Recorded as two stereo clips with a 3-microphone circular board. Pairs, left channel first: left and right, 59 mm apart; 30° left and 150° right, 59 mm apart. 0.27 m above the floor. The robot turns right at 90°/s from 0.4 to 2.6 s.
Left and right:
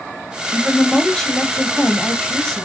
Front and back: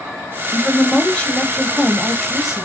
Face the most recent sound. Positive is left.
turn(degrees=150)